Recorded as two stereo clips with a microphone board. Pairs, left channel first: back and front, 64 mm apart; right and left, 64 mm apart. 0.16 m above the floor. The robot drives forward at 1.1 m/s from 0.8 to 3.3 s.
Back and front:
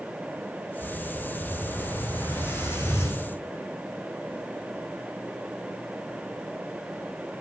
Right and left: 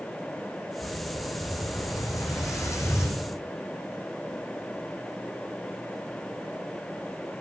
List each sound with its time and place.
0.8 s an explosion: 115° right, 6 m; by 3.2 s 135° right, 7.5 m